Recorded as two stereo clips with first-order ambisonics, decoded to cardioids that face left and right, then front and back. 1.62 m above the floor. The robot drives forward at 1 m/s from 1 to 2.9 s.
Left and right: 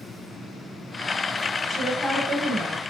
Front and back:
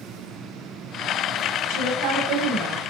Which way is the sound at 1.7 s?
175° right.